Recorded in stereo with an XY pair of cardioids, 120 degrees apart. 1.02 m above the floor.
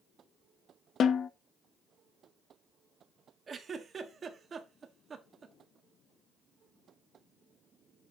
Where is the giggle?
35° right, 1.4 m.